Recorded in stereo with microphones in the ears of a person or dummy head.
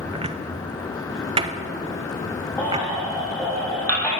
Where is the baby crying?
10° left (ahead or behind), 1.8 m.